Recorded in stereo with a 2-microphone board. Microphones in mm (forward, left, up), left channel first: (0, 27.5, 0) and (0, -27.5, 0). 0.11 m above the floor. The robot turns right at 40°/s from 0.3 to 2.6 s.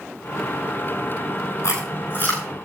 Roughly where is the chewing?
Left.